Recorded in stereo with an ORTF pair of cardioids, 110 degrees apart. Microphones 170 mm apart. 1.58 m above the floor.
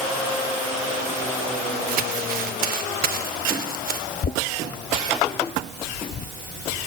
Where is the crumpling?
60° right, 3 m.